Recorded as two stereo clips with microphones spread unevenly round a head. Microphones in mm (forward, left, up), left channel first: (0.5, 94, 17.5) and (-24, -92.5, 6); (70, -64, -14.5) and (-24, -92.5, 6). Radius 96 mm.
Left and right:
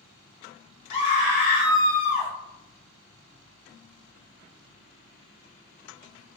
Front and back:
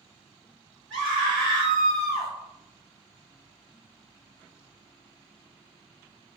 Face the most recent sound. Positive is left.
turn(degrees=145)